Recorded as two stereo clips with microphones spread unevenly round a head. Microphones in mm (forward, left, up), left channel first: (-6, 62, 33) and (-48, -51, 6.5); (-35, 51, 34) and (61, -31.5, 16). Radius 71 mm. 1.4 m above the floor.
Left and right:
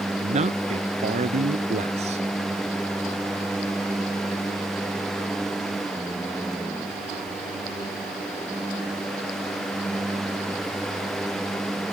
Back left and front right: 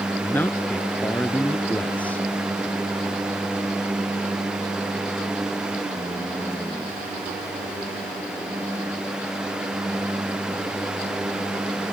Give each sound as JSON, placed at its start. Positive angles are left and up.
{"t": 0.2, "sound": "a man speaking", "azimuth_deg": -145}